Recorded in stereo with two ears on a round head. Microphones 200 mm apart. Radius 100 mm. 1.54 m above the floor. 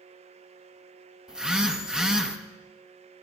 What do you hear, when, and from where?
1.3 s a phone buzzing: 5° right (ahead or behind), 1.0 m